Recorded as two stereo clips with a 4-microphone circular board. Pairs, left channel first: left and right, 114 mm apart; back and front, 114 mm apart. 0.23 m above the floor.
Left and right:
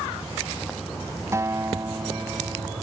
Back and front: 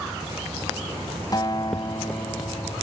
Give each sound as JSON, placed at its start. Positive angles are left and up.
{"t": 1.3, "sound": "a guitar", "azimuth_deg": -145}